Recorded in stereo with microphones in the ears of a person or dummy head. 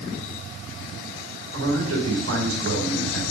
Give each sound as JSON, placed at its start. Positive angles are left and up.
{"t": 1.5, "sound": "a man speaking", "side_deg": -80, "distance_m": 4.5}